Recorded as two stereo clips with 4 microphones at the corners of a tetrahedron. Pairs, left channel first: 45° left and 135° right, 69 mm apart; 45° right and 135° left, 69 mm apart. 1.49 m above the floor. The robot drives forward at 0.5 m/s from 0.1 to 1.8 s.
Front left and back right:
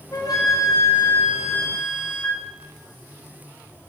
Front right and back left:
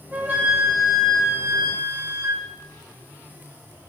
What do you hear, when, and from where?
0.1 s a flute: 75° left, 1.7 m; by 2.5 s 100° left, 1.7 m